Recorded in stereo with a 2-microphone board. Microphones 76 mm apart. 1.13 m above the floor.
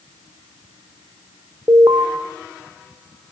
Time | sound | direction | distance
1.7 | an alarm | 70° right (ahead or behind) | 2.5 m